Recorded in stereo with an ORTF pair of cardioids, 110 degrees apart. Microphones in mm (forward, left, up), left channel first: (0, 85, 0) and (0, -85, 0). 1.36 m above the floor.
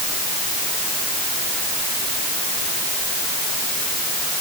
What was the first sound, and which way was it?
Only background noise.